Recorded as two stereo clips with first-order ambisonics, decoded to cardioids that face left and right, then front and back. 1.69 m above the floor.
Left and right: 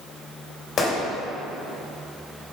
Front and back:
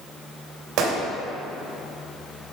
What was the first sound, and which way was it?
A gunshot, 150° left.